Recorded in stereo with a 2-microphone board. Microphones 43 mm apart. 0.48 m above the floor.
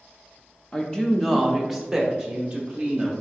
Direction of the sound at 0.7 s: 20° left (ahead or behind).